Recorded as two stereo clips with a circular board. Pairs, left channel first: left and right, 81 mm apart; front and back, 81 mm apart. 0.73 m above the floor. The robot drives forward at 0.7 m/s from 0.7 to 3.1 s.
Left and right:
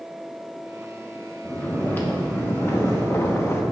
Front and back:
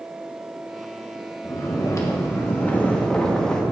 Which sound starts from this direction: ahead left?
Snoring, at 1.4 s.